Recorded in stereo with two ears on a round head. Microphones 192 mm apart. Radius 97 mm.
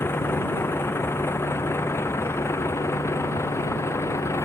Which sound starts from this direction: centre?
A vehicle, at 0.0 s.